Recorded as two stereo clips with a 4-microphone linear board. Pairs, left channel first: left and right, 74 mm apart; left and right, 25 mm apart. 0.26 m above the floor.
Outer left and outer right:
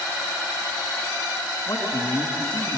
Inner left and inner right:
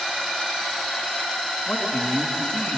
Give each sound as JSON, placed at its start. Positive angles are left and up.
{"t": 1.7, "sound": "a man speaking", "side_deg": 45, "distance_m": 3.0}